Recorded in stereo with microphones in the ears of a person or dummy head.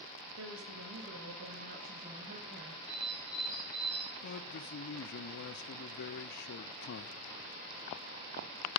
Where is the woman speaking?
65° right (ahead or behind), 3 m; by 2.8 s 35° right (ahead or behind), 2.5 m.